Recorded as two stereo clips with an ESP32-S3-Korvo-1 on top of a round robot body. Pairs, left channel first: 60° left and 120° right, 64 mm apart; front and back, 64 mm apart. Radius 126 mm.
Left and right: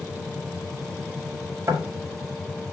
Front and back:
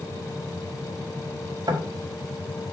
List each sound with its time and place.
1.7 s knocking: 160° right, 4 m